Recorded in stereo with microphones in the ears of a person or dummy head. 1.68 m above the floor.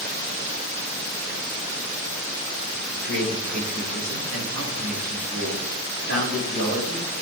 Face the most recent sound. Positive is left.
turn(degrees=-60)  # may be behind; listen again after turning